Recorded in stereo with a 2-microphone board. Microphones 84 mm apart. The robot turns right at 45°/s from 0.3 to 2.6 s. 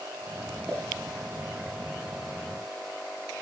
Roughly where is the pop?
Centre.